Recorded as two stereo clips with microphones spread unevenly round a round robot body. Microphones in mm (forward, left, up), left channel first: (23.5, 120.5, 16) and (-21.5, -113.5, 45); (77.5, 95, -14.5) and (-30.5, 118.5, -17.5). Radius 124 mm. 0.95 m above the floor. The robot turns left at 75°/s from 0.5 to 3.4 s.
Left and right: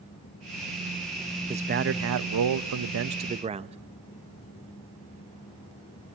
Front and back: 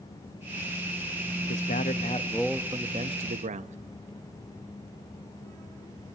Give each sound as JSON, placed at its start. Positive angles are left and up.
{"t": 1.5, "sound": "a man speaking", "azimuth_deg": -25, "distance_m": 0.9}